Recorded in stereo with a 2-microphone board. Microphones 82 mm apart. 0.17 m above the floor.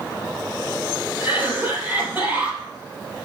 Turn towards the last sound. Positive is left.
turn(degrees=-20)  # may be behind; listen again after turning